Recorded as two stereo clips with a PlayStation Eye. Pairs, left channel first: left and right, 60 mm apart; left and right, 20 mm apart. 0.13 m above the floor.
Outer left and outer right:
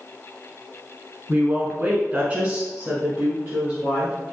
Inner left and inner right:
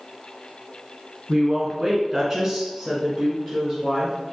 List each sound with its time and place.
1.3 s a woman speaking: 20° right (ahead or behind), 1.3 m; by 4.2 s 10° right (ahead or behind), 1.8 m